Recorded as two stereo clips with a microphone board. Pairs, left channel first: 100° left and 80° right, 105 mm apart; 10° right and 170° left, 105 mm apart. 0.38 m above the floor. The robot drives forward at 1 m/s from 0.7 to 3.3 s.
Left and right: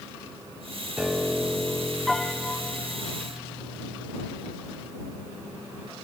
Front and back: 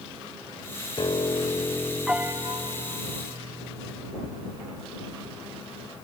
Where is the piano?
Straight ahead, 1.3 m; by 4.1 s straight behind, 1.5 m.